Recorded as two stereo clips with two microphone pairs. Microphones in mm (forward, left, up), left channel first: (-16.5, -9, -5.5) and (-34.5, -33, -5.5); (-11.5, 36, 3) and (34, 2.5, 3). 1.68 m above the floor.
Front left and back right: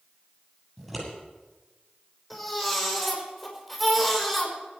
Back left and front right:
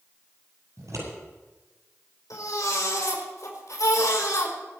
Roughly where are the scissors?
Ahead right.